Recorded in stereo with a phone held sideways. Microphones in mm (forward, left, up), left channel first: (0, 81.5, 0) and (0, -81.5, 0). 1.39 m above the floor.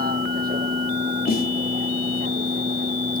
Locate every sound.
0.0 s a vehicle: 65° right (ahead or behind); by 3.2 s 60° right (ahead or behind)
1.3 s a snare drum: 65° left (ahead or behind)